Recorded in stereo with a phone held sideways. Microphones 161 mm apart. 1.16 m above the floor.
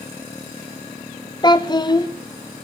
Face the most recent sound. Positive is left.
turn(degrees=25)  # may be behind; listen again after turning